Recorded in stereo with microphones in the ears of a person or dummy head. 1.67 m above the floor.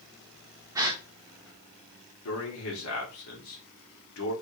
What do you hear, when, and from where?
0.8 s a gasp: 20° right (ahead or behind), 0.5 m
2.2 s a man speaking: 70° left (ahead or behind), 1.5 m